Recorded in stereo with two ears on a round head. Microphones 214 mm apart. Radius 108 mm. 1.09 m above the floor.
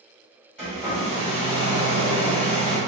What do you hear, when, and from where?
0.6 s a hair dryer: 5° left (ahead or behind), 1.8 m